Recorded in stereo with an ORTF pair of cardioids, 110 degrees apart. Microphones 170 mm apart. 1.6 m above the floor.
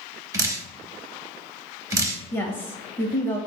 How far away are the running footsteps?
I don't hear running footsteps.